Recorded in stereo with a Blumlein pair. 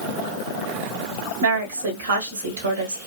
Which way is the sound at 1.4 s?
65° right.